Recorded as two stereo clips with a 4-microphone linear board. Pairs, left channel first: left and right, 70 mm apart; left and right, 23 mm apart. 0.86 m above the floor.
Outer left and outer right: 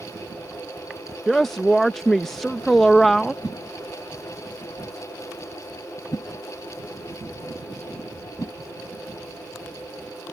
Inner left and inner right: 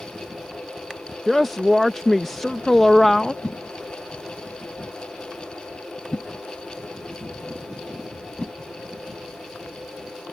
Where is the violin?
No violin in this recording.